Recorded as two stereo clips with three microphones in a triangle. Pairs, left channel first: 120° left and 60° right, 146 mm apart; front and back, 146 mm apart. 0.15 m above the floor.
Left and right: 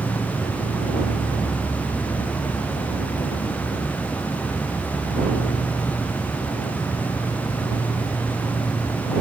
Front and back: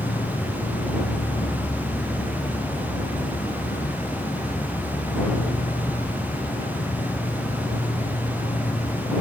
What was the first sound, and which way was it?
An insect, 40° left.